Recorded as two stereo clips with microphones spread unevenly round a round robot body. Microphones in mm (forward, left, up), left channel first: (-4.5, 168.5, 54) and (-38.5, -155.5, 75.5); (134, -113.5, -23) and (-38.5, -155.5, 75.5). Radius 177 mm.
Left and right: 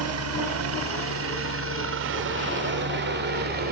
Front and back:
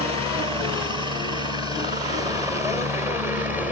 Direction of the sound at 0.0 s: 85° right.